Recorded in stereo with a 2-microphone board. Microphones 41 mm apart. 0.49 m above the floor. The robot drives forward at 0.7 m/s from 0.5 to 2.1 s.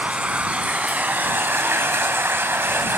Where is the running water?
40° right (ahead or behind), 1.2 m; by 3.0 s 75° right (ahead or behind), 0.8 m.